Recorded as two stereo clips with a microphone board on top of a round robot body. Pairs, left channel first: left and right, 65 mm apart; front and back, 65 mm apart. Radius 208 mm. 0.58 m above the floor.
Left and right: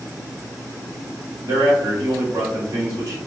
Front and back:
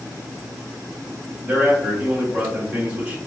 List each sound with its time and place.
1.4 s a man speaking: 110° right, 1.8 m